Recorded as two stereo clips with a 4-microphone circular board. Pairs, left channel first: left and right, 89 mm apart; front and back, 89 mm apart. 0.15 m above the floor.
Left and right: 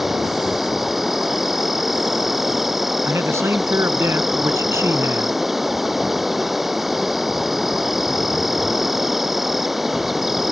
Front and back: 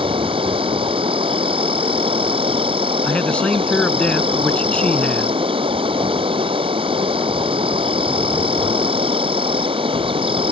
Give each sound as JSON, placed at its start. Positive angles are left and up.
{"t": 0.0, "sound": "an insect", "azimuth_deg": 180}
{"t": 3.0, "sound": "a man speaking", "azimuth_deg": -65}